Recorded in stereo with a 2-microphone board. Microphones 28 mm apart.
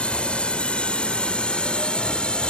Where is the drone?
45° left (ahead or behind); by 2.5 s 40° left (ahead or behind).